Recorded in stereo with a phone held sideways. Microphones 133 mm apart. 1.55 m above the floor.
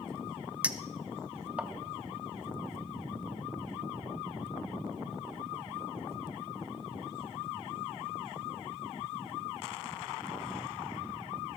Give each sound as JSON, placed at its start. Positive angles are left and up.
{"t": 0.6, "sound": "a clink", "side_deg": -10, "distance_m": 0.6}